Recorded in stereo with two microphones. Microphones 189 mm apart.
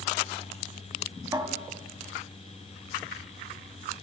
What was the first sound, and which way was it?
A cupboard door, 20° right (ahead or behind).